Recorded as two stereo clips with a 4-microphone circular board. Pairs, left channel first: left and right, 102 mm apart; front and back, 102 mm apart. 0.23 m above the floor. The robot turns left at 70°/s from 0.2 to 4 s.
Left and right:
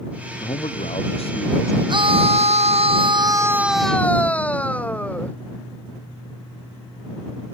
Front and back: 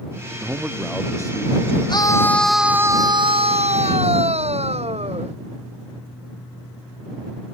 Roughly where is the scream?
Ahead right.